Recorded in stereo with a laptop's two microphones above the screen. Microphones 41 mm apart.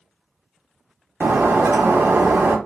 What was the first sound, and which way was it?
Breaking glass, 75° right (ahead or behind).